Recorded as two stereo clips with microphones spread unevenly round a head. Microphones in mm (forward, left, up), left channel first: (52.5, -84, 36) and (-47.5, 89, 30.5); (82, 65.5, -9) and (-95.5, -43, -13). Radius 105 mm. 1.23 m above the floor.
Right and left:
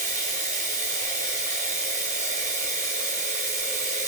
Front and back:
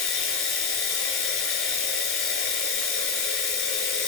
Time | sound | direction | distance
0.0 | running water | 65° left | 5.5 m